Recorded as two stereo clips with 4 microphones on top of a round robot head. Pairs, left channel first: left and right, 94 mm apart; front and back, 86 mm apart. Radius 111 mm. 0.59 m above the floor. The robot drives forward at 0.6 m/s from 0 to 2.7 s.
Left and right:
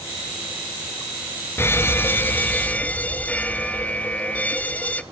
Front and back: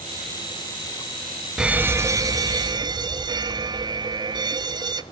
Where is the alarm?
105° left, 0.7 m; by 5.0 s 160° left, 1.0 m.